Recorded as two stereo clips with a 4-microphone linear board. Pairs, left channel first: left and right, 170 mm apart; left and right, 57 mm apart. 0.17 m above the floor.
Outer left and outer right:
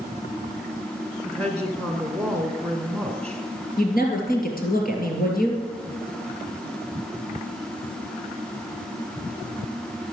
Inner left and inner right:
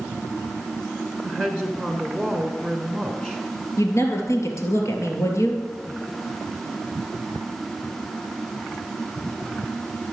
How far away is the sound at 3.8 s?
About 3 m.